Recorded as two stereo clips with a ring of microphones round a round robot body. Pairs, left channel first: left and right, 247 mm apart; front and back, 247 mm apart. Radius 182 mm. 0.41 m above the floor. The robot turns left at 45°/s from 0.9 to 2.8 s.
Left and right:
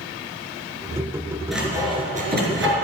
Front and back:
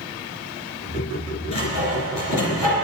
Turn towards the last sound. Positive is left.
turn(degrees=-60)